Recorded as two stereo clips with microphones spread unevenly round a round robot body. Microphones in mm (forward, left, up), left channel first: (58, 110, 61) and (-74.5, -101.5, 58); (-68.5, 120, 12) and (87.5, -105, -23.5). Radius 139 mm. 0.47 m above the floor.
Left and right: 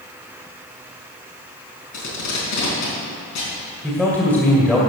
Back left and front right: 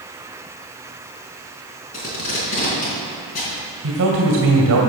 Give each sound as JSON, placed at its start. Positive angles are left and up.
{"t": 1.9, "sound": "tape being pulled", "azimuth_deg": 65, "distance_m": 4.0}
{"t": 3.8, "sound": "a man speaking", "azimuth_deg": -25, "distance_m": 2.0}